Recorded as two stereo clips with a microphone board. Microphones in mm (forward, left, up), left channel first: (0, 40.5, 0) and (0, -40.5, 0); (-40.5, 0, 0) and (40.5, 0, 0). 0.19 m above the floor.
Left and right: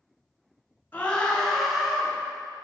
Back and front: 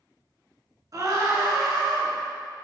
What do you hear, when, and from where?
0.9 s a scream: 25° left, 2 m; by 2.1 s 10° right, 2 m